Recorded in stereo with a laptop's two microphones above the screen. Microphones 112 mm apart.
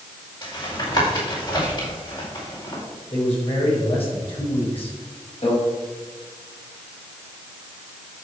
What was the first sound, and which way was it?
Tapping, 45° left (ahead or behind).